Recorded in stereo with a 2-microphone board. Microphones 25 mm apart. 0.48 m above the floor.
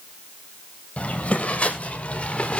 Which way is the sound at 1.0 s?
85° left.